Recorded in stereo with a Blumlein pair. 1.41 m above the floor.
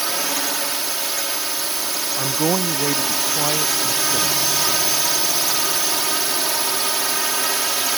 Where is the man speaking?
20° right.